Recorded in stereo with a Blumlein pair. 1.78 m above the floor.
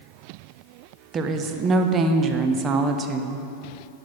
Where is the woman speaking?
25° right, 0.5 m.